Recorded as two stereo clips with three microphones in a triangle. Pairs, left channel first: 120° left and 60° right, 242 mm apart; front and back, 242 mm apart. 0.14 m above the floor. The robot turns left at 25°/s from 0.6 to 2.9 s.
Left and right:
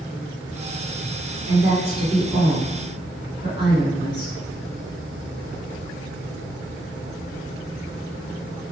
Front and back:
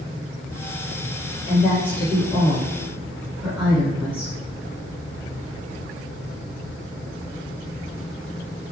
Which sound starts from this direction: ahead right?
A woman speaking, at 1.5 s.